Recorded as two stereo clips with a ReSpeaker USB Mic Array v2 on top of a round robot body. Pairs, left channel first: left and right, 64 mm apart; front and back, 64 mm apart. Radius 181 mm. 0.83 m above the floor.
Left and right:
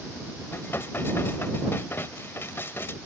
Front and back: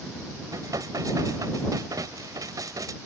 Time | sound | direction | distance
0.5 | dishes clattering | 150° left | ?